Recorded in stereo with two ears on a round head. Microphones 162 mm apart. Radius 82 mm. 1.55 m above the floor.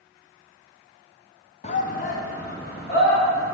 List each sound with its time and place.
1.6 s a shout: 40° left (ahead or behind), 0.8 m; by 3.6 s 60° left (ahead or behind), 3.5 m